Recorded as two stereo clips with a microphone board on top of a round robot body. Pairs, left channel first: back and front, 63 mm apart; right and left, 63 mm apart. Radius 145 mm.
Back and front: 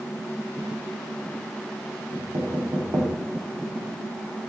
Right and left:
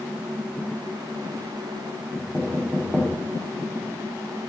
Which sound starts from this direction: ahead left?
Knocking, at 2.1 s.